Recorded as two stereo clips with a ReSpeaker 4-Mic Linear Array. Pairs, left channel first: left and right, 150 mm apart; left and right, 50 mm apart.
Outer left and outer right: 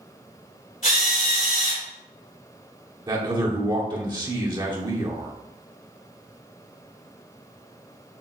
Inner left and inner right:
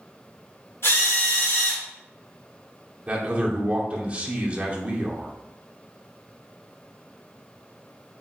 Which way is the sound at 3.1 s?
30° right (ahead or behind).